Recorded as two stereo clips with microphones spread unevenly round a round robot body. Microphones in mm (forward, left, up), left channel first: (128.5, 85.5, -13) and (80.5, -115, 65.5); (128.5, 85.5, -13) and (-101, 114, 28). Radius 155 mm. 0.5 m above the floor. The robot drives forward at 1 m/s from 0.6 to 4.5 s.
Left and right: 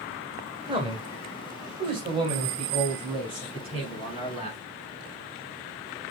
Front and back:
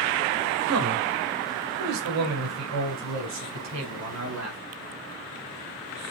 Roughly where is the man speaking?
Behind.